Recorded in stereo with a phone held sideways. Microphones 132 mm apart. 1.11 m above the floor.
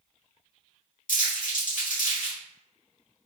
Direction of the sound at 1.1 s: 75° left (ahead or behind).